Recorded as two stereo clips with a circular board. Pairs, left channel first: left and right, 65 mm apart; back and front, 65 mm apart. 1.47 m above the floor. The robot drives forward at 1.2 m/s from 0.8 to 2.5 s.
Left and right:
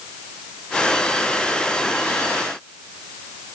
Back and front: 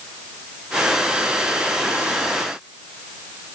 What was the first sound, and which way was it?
Only background noise.